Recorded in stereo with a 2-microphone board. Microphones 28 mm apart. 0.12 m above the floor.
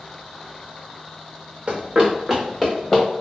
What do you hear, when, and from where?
1.7 s running footsteps: 45° right (ahead or behind), 1.2 m; by 3.0 s 10° left (ahead or behind), 1.7 m